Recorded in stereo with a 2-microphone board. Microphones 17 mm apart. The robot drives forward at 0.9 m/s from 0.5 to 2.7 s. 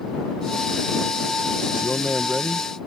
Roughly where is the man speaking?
Right.